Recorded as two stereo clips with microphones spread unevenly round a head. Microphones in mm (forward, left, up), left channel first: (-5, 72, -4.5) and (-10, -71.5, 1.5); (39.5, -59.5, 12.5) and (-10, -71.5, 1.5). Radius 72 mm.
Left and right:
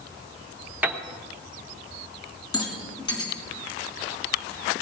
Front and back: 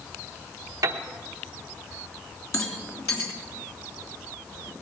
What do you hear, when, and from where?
0.8 s a piano: 170° right, 1.0 m
2.5 s a rattle: 25° left, 3 m